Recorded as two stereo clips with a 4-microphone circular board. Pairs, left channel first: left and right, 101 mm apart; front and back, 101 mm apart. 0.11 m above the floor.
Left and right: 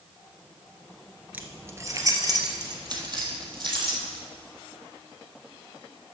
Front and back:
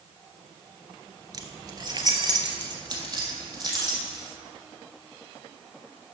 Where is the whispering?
I don't hear whispering.